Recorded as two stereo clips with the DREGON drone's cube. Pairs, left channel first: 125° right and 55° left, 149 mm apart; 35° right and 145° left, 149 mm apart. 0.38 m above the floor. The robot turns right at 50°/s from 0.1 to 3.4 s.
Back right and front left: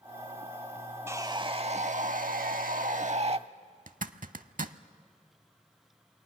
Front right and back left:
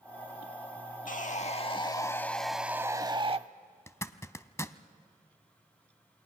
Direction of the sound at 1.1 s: 15° right.